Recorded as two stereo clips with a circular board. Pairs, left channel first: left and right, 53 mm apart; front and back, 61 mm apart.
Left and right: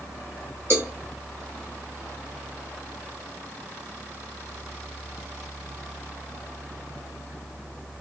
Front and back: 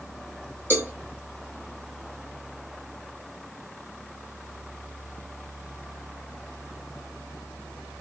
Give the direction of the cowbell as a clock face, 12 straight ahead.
4 o'clock.